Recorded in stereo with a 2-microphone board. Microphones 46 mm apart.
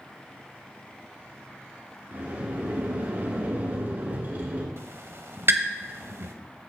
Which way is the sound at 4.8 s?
65° right (ahead or behind).